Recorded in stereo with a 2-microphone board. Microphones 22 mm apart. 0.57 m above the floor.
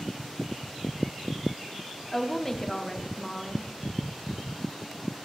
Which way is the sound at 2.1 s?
10° left (ahead or behind).